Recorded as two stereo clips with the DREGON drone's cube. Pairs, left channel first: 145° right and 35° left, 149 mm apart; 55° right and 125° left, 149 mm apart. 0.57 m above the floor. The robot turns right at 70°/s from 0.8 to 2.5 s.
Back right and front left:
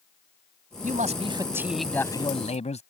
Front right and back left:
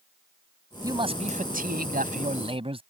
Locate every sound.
0.8 s a man speaking: 60° left; by 2.8 s 175° left